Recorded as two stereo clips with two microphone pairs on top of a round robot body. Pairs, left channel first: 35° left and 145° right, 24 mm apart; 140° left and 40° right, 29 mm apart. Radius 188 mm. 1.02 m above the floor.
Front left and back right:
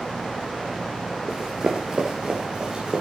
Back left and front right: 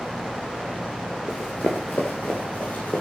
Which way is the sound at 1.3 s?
175° left.